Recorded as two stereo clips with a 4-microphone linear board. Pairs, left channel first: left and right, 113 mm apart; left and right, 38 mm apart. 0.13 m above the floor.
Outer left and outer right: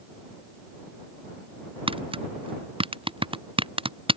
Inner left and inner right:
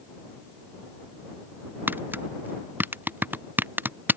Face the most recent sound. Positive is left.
turn(degrees=-55)  # may be behind; listen again after turning